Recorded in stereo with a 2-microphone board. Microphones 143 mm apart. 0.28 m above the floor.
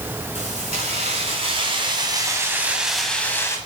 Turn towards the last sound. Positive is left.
turn(degrees=20)  # may be behind; listen again after turning